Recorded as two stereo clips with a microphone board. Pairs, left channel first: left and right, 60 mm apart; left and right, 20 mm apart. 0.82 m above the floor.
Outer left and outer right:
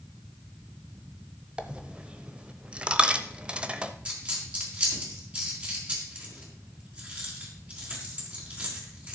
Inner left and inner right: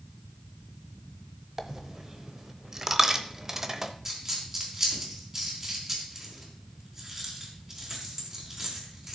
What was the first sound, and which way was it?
A dropped coin, 20° right (ahead or behind).